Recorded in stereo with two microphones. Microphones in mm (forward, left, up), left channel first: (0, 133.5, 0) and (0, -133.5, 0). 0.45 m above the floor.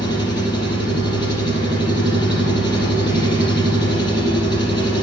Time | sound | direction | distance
0.0 | an engine running | 15° left (ahead or behind) | 3.5 m